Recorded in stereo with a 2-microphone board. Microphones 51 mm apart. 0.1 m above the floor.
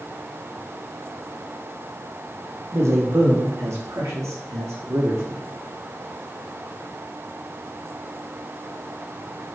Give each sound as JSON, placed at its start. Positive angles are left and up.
{"t": 2.7, "sound": "a man speaking", "side_deg": -75, "distance_m": 5.0}